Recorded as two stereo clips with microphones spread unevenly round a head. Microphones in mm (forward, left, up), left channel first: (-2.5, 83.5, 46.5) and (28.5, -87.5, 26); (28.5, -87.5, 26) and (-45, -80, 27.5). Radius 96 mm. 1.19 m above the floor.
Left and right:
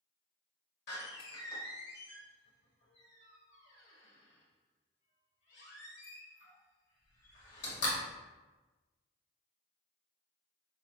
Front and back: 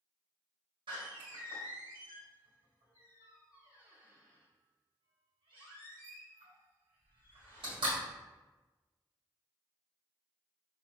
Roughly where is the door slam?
Behind left.